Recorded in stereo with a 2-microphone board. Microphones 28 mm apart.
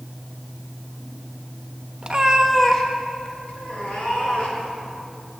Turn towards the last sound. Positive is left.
turn(degrees=50)  # may be behind; listen again after turning